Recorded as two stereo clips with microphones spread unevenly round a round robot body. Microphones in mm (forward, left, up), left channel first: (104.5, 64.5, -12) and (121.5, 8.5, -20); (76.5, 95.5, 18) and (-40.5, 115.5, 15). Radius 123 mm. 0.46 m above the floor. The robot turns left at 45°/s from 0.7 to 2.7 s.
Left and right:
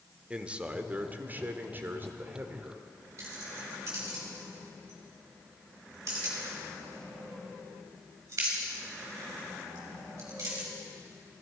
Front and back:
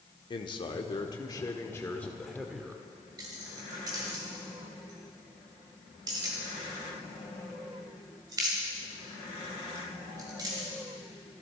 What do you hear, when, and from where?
0.3 s a man speaking: 25° right, 0.9 m; by 2.9 s 115° right, 0.9 m
3.2 s keys jangling: 120° right, 1.3 m